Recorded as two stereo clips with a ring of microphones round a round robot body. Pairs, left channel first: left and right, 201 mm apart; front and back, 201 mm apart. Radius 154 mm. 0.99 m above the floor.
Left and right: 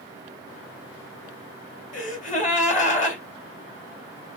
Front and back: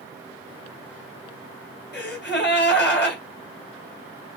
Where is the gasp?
35° left, 2.5 m.